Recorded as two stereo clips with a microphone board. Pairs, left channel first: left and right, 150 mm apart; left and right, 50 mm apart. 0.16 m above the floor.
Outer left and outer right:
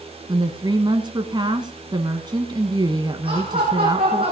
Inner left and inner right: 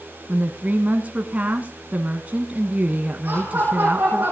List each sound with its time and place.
0.3 s a woman speaking: 30° right (ahead or behind), 1.3 m
3.2 s laughter: 35° right (ahead or behind), 7.5 m